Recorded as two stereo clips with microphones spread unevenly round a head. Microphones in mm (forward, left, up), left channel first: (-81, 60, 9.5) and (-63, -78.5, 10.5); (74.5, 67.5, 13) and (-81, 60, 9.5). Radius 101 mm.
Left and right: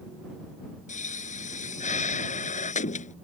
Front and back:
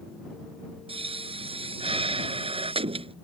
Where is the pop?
130° left.